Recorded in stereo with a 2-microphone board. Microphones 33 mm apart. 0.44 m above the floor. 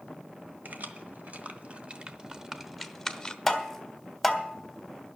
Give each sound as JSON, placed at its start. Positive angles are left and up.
{"t": 0.7, "sound": "keys jangling", "side_deg": -60, "distance_m": 1.3}
{"t": 3.5, "sound": "tapping", "side_deg": 5, "distance_m": 1.4}